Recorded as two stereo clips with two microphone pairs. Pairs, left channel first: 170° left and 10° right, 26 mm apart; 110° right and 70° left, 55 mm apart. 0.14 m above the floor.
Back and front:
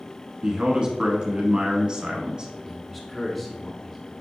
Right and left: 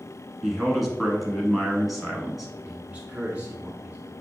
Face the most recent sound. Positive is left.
turn(degrees=95)